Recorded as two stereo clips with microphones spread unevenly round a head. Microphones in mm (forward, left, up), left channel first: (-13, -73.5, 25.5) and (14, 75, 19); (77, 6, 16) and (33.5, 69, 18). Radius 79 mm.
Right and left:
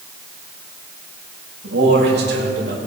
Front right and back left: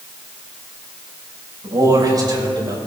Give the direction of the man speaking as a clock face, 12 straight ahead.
9 o'clock.